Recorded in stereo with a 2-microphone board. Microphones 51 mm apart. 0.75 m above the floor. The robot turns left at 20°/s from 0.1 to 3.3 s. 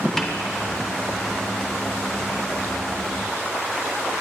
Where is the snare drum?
10° left (ahead or behind), 0.9 m.